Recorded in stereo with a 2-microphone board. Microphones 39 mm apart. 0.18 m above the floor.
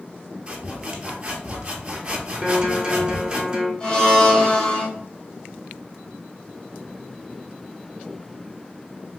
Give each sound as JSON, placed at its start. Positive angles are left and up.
{"t": 0.5, "sound": "sawing", "side_deg": -25, "distance_m": 0.8}
{"t": 2.4, "sound": "a guitar", "side_deg": -20, "distance_m": 1.0}
{"t": 3.8, "sound": "a blender", "side_deg": 15, "distance_m": 1.9}